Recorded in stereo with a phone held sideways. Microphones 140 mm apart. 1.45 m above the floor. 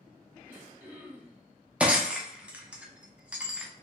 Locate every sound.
0.5 s throat clearing: 15° right (ahead or behind), 0.7 m
1.8 s breaking glass: 10° right (ahead or behind), 0.5 m